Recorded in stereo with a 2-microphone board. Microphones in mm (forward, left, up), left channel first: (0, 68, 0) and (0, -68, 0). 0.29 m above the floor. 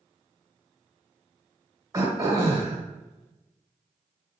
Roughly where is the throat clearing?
Right.